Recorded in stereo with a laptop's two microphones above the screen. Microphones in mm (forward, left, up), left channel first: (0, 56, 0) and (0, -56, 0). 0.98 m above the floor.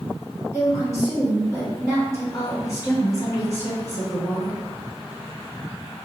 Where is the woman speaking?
30° left (ahead or behind), 1.8 m.